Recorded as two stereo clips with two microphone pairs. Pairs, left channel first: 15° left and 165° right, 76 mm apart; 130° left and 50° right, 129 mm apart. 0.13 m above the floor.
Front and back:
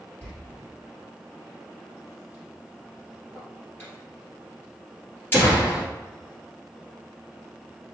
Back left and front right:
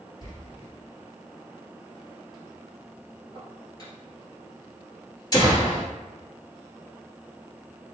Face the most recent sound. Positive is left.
turn(degrees=75)